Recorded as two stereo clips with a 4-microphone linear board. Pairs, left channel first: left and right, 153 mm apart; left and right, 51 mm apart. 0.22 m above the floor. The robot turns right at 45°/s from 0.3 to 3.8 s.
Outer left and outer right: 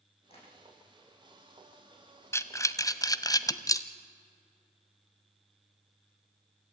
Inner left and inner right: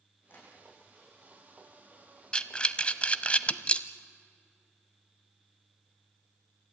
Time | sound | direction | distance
0.3 | tapping | 40° left (ahead or behind) | 9.5 m
2.3 | breathing | 15° left (ahead or behind) | 0.8 m